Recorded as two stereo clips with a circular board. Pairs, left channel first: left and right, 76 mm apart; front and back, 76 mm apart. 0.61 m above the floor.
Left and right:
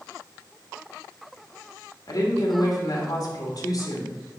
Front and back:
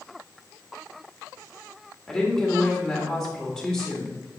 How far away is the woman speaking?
About 2 m.